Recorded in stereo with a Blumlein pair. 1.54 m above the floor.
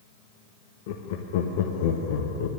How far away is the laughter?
About 0.9 m.